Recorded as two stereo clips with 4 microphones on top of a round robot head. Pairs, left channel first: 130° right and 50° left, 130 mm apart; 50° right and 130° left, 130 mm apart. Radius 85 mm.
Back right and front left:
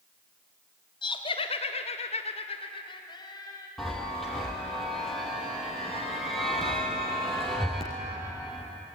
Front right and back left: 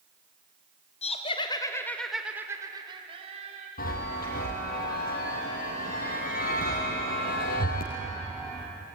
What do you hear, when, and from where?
1.0 s laughter: 80° right, 2.5 m; by 3.7 s 165° left, 3 m
3.8 s a chime: 40° right, 4.5 m